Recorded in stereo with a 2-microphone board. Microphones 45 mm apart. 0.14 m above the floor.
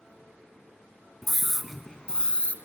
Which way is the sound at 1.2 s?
10° right (ahead or behind).